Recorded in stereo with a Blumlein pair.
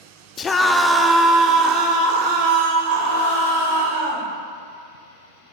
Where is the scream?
25° left, 0.6 m; by 4.3 s 55° right, 2.5 m.